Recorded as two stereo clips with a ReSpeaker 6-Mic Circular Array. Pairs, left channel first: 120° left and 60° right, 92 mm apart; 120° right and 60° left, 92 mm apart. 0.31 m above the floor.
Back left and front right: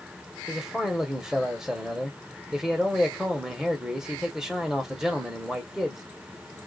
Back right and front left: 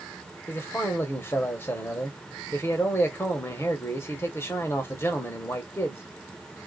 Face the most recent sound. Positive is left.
turn(degrees=-135)